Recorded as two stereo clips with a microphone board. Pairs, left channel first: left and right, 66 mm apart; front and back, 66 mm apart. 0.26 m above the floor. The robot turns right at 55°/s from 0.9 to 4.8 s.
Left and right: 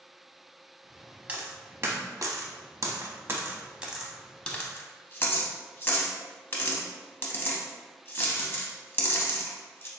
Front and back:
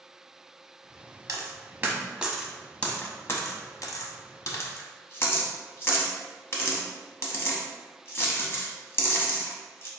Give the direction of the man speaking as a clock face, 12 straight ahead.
No man speaking in this recording.